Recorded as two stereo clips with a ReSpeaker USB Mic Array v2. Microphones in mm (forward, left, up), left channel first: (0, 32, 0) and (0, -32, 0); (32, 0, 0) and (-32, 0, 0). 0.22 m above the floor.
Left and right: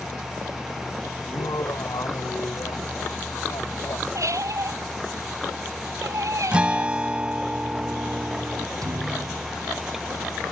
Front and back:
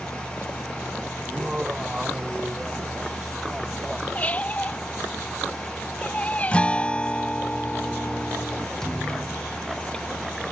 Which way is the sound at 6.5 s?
45° right.